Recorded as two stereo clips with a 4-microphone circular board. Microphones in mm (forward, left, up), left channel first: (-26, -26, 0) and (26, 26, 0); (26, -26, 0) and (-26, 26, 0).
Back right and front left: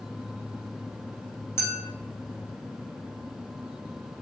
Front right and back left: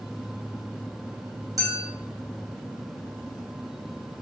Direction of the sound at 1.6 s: 170° left.